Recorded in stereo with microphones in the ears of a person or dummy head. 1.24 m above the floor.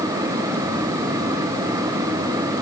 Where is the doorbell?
No doorbell in this recording.